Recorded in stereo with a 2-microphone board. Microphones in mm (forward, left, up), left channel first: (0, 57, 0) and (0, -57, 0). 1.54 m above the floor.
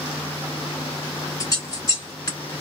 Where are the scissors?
30° left (ahead or behind), 1.6 m.